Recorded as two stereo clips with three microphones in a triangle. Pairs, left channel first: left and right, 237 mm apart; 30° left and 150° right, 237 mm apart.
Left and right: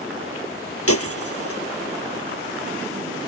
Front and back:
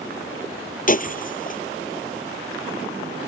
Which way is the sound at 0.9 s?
80° left.